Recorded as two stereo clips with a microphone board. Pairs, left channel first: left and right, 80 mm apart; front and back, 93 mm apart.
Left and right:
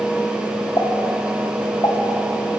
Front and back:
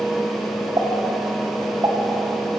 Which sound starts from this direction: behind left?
A pop, at 0.8 s.